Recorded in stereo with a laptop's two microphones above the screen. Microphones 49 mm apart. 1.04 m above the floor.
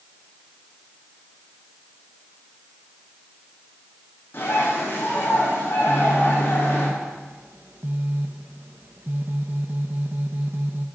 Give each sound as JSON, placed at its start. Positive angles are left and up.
{"t": 4.3, "sound": "a bird", "side_deg": 45, "distance_m": 8.0}
{"t": 5.9, "sound": "a phone buzzing", "side_deg": -45, "distance_m": 1.3}